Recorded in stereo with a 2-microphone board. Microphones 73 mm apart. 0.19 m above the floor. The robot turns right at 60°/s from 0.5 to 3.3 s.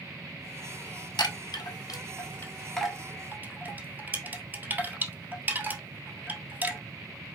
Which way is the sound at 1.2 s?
75° left (ahead or behind).